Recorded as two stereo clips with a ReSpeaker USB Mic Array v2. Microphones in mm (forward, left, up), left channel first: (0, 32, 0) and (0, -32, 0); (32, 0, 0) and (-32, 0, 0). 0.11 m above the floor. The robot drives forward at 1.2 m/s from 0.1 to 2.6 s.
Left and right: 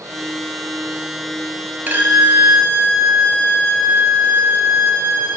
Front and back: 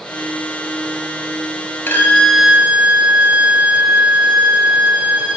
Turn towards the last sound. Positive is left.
turn(degrees=-125)